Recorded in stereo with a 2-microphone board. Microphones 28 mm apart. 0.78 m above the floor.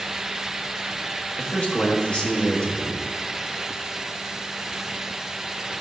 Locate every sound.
1.4 s a man speaking: 30° left (ahead or behind), 1.5 m